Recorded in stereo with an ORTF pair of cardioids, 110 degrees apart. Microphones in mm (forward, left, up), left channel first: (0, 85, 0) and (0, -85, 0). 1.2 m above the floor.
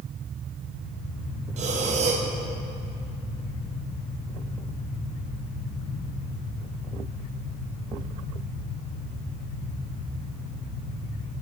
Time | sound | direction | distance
1.6 | breathing | 45° right | 0.8 m